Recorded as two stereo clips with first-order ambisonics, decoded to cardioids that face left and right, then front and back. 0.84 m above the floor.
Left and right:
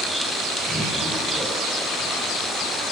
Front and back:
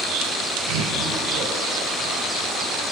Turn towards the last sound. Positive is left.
turn(degrees=175)